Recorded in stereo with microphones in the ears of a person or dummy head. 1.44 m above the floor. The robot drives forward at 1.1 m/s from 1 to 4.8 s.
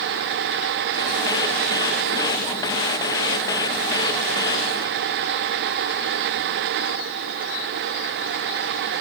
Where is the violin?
I don't hear a violin.